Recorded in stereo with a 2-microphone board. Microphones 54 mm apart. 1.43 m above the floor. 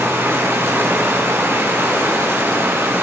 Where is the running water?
50° right (ahead or behind), 8 m.